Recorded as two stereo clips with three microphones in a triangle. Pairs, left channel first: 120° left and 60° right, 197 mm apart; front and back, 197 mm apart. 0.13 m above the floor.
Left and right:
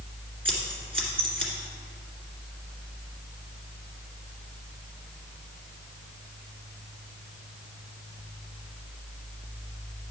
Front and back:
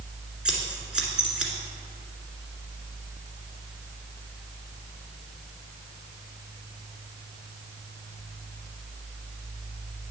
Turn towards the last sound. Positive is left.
turn(degrees=-95)